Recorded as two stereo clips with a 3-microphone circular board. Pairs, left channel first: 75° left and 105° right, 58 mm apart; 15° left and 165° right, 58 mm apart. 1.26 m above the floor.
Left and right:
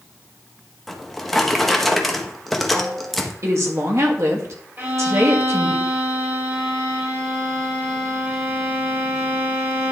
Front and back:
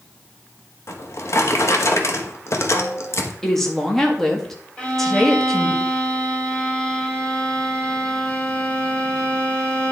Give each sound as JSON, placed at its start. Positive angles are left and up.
{"t": 0.9, "sound": "a drawer", "azimuth_deg": -10, "distance_m": 1.0}
{"t": 3.4, "sound": "a woman speaking", "azimuth_deg": -70, "distance_m": 1.7}
{"t": 4.8, "sound": "a violin", "azimuth_deg": -55, "distance_m": 2.0}